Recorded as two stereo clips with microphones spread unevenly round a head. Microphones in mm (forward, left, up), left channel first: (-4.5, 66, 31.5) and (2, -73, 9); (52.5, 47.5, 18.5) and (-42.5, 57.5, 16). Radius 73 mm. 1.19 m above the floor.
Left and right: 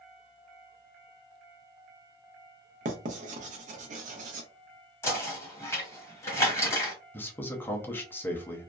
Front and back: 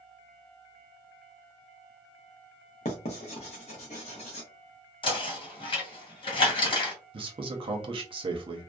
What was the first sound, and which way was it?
Writing, 45° right.